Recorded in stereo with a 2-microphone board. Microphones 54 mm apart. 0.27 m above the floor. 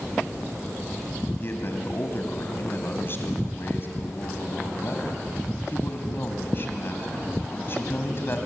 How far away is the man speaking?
About 2 m.